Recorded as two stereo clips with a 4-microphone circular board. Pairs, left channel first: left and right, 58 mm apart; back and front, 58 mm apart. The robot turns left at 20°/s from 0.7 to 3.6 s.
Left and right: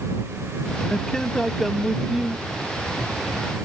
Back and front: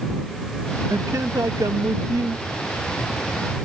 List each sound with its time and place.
0.9 s a man speaking: 15° left; by 2.4 s 15° right